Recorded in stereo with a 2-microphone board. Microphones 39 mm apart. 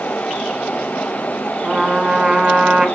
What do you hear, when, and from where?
1.6 s a trumpet: 20° right (ahead or behind), 2.5 m